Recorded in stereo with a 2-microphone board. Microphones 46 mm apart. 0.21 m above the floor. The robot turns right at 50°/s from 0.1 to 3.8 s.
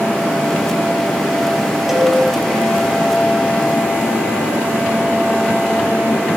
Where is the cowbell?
5° right (ahead or behind), 0.7 m; by 2.1 s 15° right (ahead or behind), 0.7 m.